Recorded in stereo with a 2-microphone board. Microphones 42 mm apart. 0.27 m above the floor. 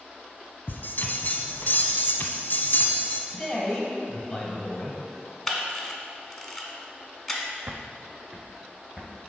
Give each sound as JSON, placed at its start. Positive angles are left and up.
{"t": 0.7, "sound": "a bell", "side_deg": 55, "distance_m": 0.8}
{"t": 3.3, "sound": "a man speaking", "side_deg": 15, "distance_m": 1.3}
{"t": 5.5, "sound": "a camera shutter", "side_deg": 0, "distance_m": 0.9}
{"t": 7.7, "sound": "footsteps", "side_deg": -55, "distance_m": 0.6}